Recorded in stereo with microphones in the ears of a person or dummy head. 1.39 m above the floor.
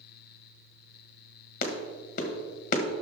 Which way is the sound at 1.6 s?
50° left (ahead or behind).